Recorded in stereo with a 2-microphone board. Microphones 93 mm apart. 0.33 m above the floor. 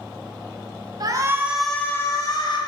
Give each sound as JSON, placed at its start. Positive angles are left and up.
{"t": 1.0, "sound": "a shout", "side_deg": -45, "distance_m": 1.3}